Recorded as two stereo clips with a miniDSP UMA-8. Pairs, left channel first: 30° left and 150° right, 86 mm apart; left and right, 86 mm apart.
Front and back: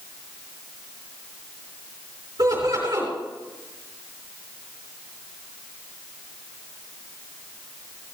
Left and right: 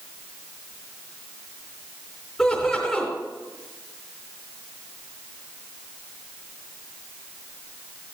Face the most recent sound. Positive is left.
turn(degrees=175)